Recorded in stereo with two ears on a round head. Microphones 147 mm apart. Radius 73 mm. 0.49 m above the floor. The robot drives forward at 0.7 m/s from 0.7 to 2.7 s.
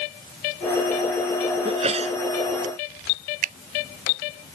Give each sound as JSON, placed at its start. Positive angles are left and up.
{"t": 1.6, "sound": "a sneeze", "side_deg": -35}
{"t": 3.4, "sound": "a finger snap", "side_deg": -50}